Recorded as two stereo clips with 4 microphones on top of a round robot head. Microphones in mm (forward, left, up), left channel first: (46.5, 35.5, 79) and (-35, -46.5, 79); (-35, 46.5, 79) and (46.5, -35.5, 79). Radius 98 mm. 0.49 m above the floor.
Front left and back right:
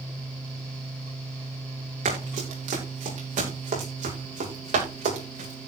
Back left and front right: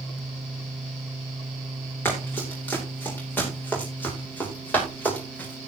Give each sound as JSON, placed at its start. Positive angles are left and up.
{"t": 2.0, "sound": "running footsteps", "azimuth_deg": -150, "distance_m": 10.0}